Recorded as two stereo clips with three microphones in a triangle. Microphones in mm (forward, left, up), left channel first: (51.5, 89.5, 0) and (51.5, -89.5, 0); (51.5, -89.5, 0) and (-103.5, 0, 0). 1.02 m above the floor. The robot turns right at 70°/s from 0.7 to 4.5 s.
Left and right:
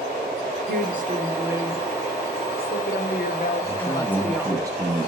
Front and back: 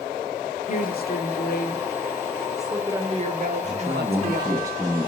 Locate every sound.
0.7 s a woman speaking: 75° right, 0.6 m; by 4.6 s 165° right, 0.6 m
3.6 s a man speaking: 150° left, 0.5 m; by 5.1 s 150° right, 0.5 m